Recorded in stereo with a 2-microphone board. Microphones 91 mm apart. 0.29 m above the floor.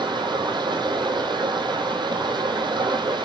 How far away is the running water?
About 2 m.